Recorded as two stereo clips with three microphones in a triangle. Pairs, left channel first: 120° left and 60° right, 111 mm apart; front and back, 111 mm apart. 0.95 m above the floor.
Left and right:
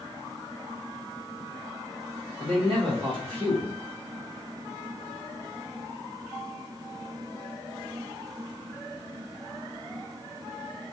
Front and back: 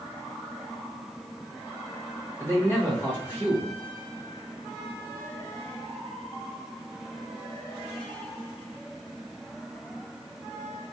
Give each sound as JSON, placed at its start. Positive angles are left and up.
{"t": 2.4, "sound": "a man speaking", "azimuth_deg": -60, "distance_m": 1.3}